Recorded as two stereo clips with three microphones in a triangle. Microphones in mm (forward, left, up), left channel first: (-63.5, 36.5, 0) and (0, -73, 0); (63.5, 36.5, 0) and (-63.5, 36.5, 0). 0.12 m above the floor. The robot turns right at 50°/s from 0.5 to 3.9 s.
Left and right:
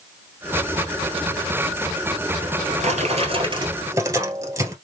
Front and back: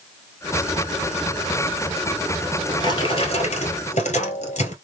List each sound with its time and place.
2.4 s a drawer: 75° right, 1.4 m; by 4.8 s straight ahead, 1.4 m